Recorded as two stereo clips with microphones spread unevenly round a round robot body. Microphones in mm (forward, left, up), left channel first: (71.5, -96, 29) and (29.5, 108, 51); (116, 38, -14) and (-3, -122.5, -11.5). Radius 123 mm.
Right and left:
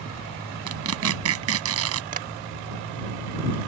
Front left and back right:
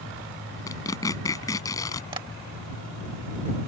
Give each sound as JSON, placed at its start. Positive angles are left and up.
{"t": 0.7, "sound": "tearing paper", "azimuth_deg": 130}
{"t": 2.1, "sound": "tapping", "azimuth_deg": 160}